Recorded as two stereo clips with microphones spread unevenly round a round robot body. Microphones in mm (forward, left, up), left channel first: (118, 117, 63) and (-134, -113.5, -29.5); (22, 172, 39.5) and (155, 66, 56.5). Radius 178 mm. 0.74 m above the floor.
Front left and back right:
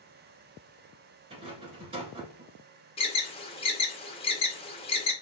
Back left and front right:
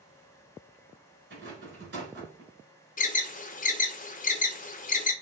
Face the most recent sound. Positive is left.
turn(degrees=125)